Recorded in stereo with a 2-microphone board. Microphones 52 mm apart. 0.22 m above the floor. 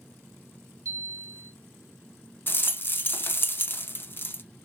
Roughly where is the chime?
Right.